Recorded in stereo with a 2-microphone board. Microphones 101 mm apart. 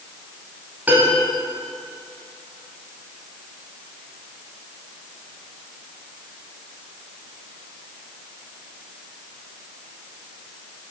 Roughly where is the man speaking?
I don't hear a man speaking.